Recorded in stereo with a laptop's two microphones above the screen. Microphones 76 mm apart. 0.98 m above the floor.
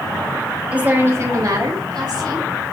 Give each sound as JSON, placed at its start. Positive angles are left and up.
{"t": 0.7, "sound": "a woman speaking", "side_deg": -15, "distance_m": 1.1}